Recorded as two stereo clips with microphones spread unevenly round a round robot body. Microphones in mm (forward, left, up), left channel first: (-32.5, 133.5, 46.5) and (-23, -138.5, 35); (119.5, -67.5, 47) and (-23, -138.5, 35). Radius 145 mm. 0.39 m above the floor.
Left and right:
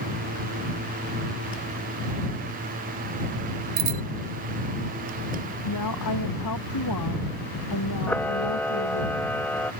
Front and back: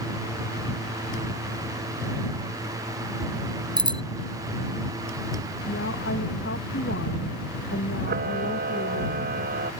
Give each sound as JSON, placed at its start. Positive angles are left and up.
{"t": 3.8, "sound": "a bicycle bell", "azimuth_deg": -90}
{"t": 5.7, "sound": "a woman speaking", "azimuth_deg": 65}
{"t": 8.1, "sound": "a camera shutter", "azimuth_deg": 175}